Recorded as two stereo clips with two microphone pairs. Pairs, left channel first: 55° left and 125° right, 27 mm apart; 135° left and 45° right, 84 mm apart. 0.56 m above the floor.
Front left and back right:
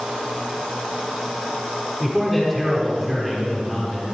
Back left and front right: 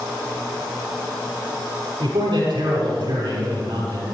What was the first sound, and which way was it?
A man speaking, 25° right.